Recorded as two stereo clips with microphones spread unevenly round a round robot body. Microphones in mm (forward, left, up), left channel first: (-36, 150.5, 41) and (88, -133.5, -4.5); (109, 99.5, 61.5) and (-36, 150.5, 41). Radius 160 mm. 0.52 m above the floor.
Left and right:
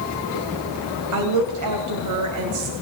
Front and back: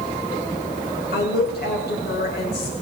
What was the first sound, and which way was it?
A woman speaking, 45° right.